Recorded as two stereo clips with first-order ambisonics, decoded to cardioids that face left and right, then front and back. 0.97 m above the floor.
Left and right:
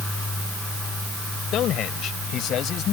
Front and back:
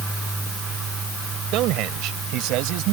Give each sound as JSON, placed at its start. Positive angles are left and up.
{"t": 1.5, "sound": "a man speaking", "azimuth_deg": 140}